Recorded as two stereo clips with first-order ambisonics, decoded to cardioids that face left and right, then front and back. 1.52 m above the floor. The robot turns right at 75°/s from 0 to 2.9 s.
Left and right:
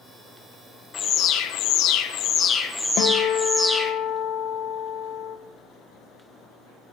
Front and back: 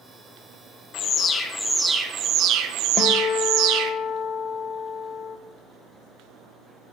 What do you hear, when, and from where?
0.9 s an alarm: 30° left, 0.7 m; by 3.9 s straight behind, 0.7 m
3.0 s a guitar: 50° left, 0.5 m